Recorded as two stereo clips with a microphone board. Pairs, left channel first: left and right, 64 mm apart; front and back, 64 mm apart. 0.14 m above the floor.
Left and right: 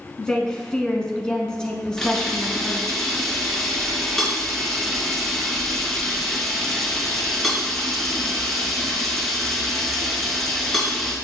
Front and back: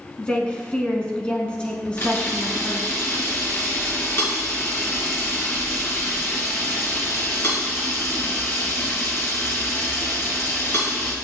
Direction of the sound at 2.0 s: 10° left.